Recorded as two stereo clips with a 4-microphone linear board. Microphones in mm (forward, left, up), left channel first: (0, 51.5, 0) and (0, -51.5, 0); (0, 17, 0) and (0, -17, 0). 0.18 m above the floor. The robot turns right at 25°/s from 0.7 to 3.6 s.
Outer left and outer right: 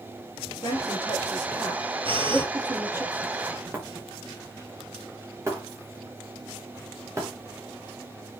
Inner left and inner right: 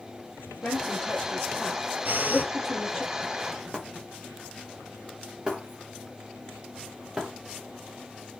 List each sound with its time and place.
0.6 s a woman speaking: 35° left (ahead or behind), 5.5 m; by 3.0 s 20° right (ahead or behind), 5.5 m
2.0 s breathing: 65° right (ahead or behind), 4.5 m; by 2.5 s 55° right (ahead or behind), 4.5 m
3.7 s breaking glass: 25° right (ahead or behind), 5 m